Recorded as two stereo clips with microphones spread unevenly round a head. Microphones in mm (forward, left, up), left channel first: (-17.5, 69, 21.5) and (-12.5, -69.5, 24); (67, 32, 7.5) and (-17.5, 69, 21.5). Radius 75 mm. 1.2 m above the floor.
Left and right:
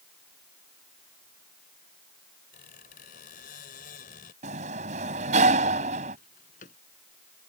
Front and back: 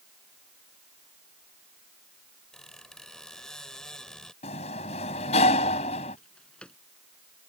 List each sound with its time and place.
2.5 s a squeak: 60° left
4.4 s a sliding door: 45° right
6.2 s a drawer: 55° left